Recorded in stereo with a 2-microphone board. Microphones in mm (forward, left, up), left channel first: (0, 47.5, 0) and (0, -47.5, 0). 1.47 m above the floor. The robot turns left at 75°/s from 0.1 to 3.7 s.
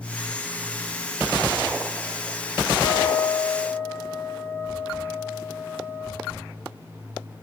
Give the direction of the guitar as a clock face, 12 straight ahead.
9 o'clock.